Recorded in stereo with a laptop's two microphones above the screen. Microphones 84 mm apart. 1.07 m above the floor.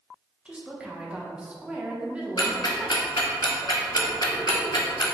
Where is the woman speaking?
15° right (ahead or behind), 0.9 m.